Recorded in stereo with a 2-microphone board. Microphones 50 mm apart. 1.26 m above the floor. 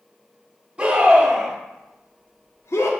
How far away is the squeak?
I don't hear a squeak.